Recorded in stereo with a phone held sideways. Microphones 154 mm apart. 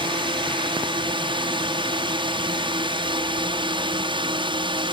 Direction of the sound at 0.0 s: 35° right (ahead or behind).